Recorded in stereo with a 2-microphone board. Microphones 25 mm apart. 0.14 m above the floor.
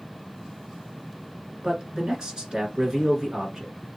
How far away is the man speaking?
About 1.8 m.